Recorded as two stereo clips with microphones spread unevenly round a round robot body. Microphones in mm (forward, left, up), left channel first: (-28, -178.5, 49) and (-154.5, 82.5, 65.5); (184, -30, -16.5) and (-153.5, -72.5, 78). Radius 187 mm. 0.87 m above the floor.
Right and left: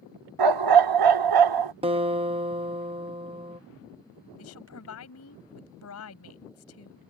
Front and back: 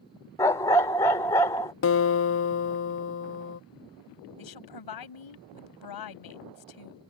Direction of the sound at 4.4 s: 10° right.